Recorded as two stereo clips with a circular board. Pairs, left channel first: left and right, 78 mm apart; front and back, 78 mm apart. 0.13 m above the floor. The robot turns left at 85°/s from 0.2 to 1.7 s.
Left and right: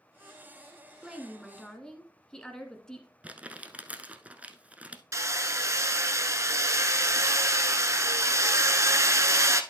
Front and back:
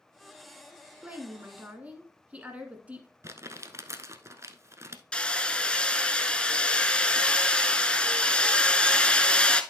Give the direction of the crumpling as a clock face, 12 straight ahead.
5 o'clock.